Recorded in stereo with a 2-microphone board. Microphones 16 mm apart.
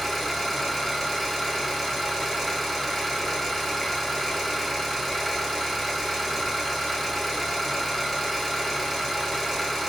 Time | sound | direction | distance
0.0 | an engine running | 10° left (ahead or behind) | 1.3 m